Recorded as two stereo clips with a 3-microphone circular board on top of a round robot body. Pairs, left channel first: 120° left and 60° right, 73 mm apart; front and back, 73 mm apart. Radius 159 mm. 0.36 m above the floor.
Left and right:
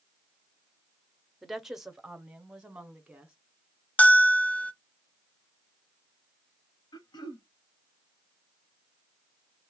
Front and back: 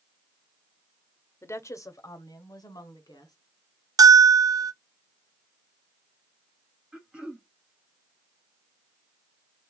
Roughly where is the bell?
Behind.